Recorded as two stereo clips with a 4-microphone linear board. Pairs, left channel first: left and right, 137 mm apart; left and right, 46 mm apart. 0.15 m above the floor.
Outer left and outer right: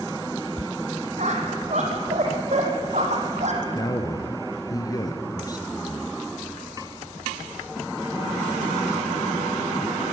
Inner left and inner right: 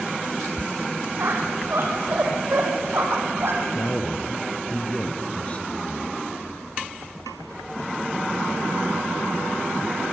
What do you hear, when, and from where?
1.2 s a squeak: 55° right (ahead or behind), 3.5 m
3.7 s a man speaking: 25° left (ahead or behind), 2 m